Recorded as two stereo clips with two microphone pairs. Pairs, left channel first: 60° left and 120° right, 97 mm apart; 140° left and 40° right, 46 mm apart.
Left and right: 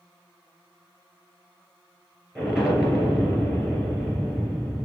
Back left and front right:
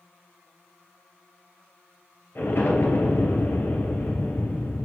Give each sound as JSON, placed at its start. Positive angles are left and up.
{"t": 2.4, "sound": "an explosion", "azimuth_deg": 155, "distance_m": 2.5}